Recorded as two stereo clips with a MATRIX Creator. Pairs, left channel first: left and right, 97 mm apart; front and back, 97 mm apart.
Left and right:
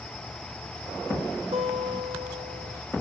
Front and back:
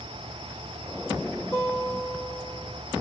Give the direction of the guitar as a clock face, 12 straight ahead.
2 o'clock.